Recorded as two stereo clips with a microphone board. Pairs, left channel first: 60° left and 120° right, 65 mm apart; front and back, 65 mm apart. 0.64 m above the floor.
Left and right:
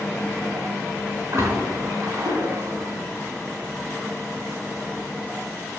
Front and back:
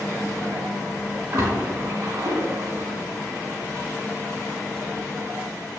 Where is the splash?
165° right, 4 m.